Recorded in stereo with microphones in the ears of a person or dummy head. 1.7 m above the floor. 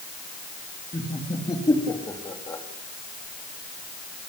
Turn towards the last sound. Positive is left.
turn(degrees=20)  # may be behind; listen again after turning